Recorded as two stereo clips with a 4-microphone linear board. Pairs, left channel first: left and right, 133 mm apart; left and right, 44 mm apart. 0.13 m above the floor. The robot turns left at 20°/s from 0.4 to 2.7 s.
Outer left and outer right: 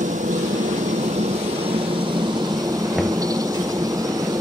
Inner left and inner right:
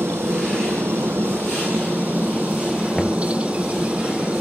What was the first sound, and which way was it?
A helicopter, 105° right.